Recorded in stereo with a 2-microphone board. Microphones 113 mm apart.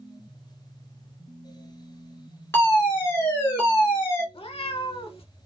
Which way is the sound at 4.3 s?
60° left (ahead or behind).